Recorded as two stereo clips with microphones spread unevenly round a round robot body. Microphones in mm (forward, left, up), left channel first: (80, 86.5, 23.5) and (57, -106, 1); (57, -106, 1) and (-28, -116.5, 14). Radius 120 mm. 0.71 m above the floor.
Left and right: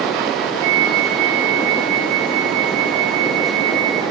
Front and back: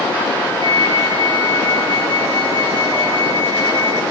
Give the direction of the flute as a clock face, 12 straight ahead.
5 o'clock.